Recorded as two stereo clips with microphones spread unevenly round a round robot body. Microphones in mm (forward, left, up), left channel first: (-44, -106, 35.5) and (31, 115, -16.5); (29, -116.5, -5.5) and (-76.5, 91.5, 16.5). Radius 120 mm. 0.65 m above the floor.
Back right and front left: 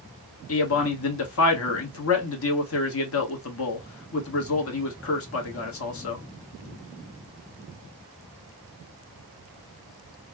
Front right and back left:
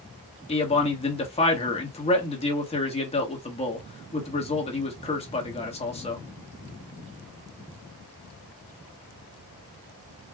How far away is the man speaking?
About 1.3 m.